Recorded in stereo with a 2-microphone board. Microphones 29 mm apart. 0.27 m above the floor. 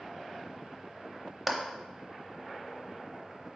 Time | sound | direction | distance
1.5 | a clap | 10° right (ahead or behind) | 0.8 m